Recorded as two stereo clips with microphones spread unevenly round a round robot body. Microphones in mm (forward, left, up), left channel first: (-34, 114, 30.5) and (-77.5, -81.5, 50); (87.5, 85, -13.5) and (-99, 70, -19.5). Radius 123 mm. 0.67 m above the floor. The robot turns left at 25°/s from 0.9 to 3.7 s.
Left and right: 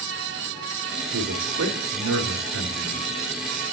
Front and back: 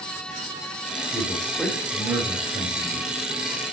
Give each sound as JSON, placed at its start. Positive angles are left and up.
{"t": 1.1, "sound": "a man speaking", "azimuth_deg": -75, "distance_m": 2.5}